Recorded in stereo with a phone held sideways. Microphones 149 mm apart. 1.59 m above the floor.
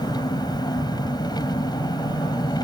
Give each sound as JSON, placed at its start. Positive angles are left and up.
{"t": 0.0, "sound": "an engine running", "side_deg": 30}